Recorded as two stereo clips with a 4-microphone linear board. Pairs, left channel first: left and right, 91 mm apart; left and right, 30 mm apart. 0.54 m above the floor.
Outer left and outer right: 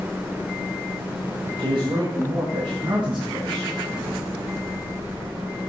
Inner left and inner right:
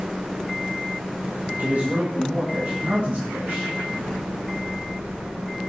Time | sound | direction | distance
1.6 | a man speaking | 70° right (ahead or behind) | 2.0 m